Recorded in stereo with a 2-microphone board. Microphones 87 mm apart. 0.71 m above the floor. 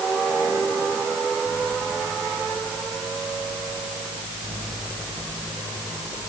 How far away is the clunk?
No clunk in this recording.